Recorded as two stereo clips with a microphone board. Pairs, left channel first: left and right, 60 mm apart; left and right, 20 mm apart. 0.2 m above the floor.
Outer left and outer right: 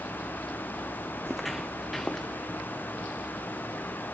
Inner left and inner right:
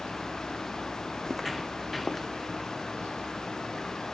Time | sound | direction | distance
1.3 | footsteps | centre (ahead or behind) | 0.6 m